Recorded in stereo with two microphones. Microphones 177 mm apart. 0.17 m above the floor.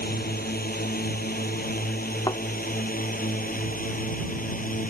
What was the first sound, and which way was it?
A drone, 60° left (ahead or behind).